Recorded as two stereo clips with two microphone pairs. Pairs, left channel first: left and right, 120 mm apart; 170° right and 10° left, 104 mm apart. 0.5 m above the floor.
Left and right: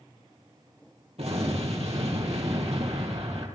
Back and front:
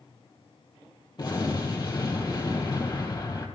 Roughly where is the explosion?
Behind right.